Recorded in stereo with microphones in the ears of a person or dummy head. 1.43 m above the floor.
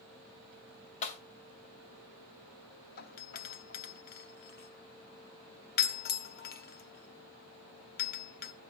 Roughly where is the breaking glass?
Left.